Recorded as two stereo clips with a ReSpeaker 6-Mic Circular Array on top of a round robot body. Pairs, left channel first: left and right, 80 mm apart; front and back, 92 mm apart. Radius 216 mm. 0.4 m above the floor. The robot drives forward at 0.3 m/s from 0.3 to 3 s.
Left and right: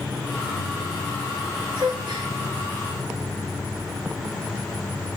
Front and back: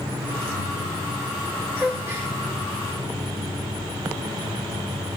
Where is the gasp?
105° right, 0.7 m; by 2.3 s 115° right, 0.8 m.